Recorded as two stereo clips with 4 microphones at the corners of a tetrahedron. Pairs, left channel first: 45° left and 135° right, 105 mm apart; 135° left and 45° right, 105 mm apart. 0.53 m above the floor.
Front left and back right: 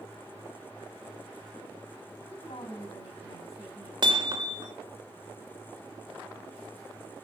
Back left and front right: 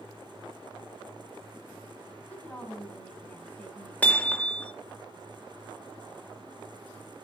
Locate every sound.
2.3 s a woman speaking: 60° left, 4.5 m
4.0 s hammering: 155° right, 1.3 m